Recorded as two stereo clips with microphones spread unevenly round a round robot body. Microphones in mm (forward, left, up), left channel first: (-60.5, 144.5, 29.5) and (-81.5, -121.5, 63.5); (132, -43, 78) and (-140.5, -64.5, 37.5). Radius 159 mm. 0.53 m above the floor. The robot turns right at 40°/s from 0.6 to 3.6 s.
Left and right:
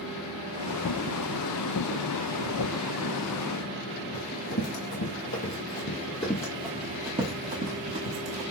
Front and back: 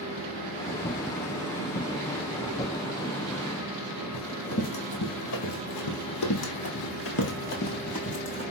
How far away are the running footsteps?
About 1.9 m.